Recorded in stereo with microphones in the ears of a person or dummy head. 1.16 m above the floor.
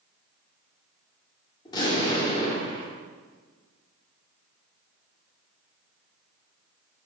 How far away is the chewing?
I don't hear chewing.